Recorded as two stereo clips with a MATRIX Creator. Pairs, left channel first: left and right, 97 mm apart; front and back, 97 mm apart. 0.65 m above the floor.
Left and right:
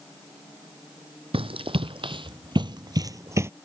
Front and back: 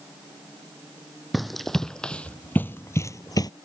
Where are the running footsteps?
90° right; by 3.5 s 35° right.